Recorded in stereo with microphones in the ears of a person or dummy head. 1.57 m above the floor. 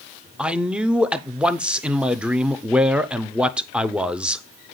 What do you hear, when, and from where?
0.4 s a man speaking: 5° right (ahead or behind), 0.5 m